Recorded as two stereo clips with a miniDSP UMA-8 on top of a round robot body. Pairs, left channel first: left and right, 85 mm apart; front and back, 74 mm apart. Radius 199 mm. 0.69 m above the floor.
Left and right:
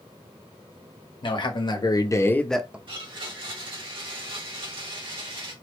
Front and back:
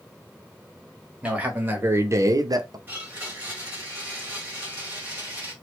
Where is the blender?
115° right, 1.9 m.